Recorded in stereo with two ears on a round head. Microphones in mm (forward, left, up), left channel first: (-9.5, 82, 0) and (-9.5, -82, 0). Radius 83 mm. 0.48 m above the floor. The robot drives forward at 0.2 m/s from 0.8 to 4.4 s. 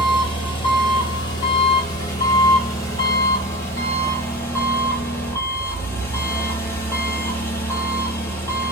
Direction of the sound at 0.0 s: 30° left (ahead or behind).